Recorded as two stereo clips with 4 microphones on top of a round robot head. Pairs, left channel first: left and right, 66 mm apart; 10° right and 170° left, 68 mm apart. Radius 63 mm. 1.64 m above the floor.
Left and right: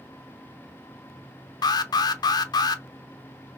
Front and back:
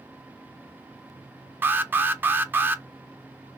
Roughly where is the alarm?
Left.